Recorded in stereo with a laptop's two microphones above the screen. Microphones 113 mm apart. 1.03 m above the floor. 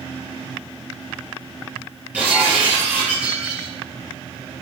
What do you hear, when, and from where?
2.1 s breaking glass: 15° right (ahead or behind), 8.5 m